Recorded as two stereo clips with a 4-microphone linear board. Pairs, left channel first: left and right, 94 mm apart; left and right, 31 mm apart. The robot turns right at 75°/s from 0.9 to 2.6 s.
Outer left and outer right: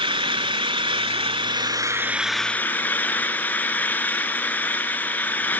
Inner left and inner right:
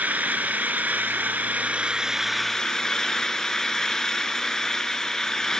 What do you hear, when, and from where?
0.0 s an engine running: 110° right, 0.8 m; by 5.6 s 20° left, 0.8 m